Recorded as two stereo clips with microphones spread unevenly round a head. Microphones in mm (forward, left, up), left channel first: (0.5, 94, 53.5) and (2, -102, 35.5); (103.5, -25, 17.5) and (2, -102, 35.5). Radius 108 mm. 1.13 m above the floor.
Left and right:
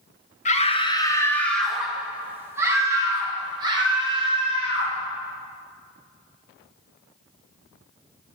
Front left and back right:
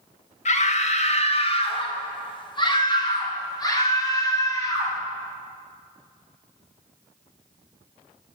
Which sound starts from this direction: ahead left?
A scream, at 0.5 s.